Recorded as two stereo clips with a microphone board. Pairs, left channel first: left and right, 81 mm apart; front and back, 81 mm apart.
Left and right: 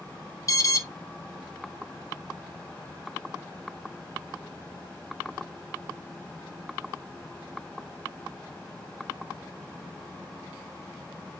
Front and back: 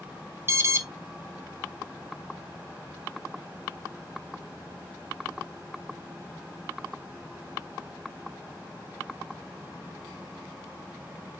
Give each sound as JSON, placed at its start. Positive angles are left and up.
{"t": 0.5, "sound": "an alarm", "azimuth_deg": 130, "distance_m": 0.6}